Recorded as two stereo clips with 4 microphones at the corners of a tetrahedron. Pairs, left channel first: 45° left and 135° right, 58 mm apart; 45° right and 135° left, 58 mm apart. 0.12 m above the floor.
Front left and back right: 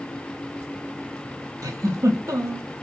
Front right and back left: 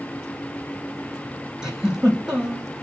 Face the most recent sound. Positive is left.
turn(degrees=-145)